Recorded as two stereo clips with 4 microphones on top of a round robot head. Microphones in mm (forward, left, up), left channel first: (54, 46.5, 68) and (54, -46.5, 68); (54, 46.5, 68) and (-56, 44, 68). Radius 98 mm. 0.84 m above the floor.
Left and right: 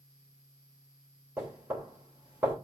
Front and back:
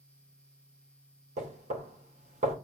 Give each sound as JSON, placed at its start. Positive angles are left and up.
{"t": 1.4, "sound": "knocking", "azimuth_deg": -165, "distance_m": 3.0}